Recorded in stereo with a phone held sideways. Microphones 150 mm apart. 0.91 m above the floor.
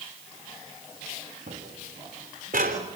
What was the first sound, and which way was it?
Footsteps, 75° right (ahead or behind).